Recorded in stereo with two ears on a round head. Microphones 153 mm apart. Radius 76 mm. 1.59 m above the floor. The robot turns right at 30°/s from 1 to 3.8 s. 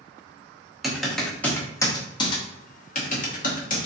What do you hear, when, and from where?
0.8 s typing on a keyboard: centre (ahead or behind), 0.9 m; by 3.9 s 50° left (ahead or behind), 0.9 m